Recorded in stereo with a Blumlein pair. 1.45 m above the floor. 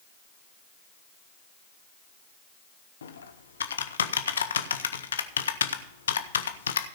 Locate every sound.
3.0 s typing on a keyboard: 70° left, 0.9 m